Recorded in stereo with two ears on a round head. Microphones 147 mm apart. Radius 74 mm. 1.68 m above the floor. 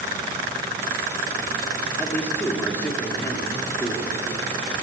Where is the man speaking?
15° left (ahead or behind), 4 m.